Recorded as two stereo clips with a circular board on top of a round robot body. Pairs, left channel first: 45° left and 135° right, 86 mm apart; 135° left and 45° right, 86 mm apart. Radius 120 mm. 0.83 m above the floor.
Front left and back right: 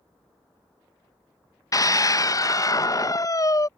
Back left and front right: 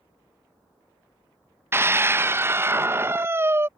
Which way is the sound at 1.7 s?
10° left.